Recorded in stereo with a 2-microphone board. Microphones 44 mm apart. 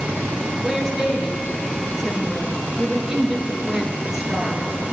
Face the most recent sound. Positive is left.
turn(degrees=-5)  # may be behind; listen again after turning